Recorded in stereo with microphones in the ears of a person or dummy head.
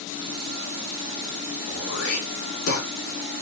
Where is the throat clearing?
75° left (ahead or behind), 2.5 m.